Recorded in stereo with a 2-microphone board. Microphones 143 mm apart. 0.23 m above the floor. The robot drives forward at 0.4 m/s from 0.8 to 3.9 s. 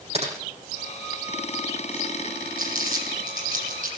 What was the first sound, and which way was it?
Typing on a keyboard, 45° right (ahead or behind).